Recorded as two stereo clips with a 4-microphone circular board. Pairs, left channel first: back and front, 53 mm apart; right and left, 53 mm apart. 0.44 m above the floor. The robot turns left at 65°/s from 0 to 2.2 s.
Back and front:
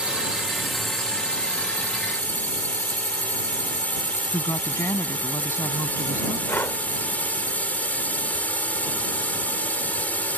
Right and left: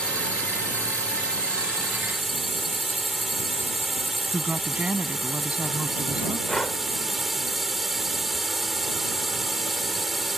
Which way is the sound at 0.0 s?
45° right.